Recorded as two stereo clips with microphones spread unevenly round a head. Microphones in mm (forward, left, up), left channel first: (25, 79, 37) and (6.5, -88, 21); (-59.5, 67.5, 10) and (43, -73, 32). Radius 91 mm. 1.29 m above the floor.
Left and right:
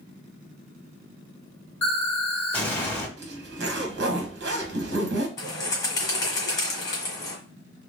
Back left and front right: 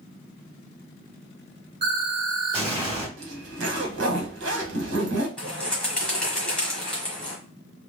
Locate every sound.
1.8 s an explosion: 5° left, 1.8 m
3.2 s a zipper: 75° right, 1.0 m
5.4 s a bird: 35° left, 1.4 m